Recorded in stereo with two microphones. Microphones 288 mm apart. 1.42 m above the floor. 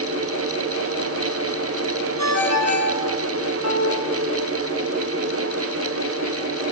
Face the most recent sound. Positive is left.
turn(degrees=60)  # may be behind; listen again after turning